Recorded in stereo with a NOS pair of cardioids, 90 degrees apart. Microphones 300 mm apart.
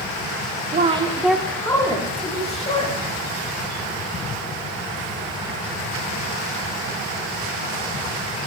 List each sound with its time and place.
0.7 s a woman speaking: 30° right, 0.8 m; by 3.0 s 25° left, 3 m